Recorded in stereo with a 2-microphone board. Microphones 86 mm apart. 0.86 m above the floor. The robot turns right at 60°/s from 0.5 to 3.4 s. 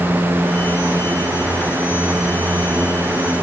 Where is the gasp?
I don't hear a gasp.